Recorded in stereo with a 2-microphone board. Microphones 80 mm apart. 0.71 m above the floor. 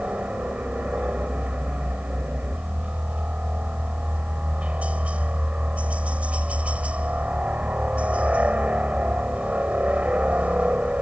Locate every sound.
0.0 s a helicopter: 15° right (ahead or behind)